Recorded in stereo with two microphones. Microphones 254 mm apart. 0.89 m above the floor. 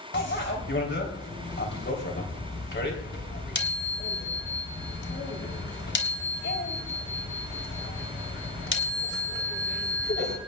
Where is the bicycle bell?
45° left (ahead or behind), 3.5 m.